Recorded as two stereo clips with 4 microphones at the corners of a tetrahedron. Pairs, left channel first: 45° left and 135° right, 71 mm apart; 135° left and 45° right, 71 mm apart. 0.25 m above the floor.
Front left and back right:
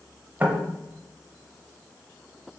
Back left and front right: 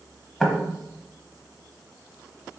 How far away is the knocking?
About 0.7 m.